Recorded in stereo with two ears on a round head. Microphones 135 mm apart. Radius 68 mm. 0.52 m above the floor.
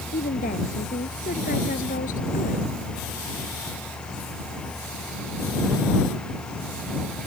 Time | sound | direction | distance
0.1 | a woman speaking | 60° left (ahead or behind) | ?